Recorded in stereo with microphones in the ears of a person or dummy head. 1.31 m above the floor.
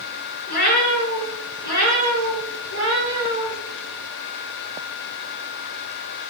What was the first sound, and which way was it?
A cat meowing, 60° left (ahead or behind).